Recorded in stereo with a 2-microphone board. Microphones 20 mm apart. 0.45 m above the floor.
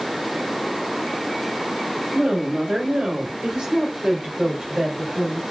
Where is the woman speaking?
30° right (ahead or behind), 1.4 m; by 5.4 s 25° right (ahead or behind), 2.5 m.